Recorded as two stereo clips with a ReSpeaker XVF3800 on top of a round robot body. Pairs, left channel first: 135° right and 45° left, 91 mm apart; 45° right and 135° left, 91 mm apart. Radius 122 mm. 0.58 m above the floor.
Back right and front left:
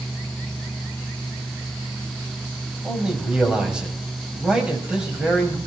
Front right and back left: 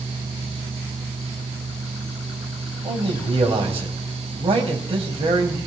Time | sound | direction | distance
2.8 | a man speaking | 125° left | 3.5 m